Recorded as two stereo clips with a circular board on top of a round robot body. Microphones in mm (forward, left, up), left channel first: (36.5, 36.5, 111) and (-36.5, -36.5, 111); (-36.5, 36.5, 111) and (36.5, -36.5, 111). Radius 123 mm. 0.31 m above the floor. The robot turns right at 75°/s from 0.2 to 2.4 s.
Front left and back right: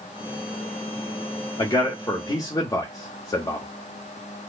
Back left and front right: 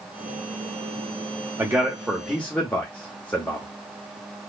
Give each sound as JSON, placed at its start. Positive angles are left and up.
{"t": 1.6, "sound": "a man speaking", "azimuth_deg": 5, "distance_m": 1.2}